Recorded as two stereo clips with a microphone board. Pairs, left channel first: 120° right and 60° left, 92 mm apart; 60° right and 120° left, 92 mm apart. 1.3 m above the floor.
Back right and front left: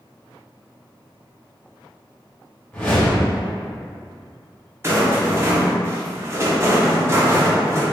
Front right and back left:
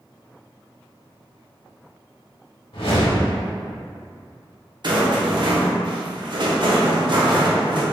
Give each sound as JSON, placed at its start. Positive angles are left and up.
{"t": 2.7, "sound": "a whoosh", "azimuth_deg": -50, "distance_m": 1.5}
{"t": 4.8, "sound": "a rattle", "azimuth_deg": 115, "distance_m": 0.7}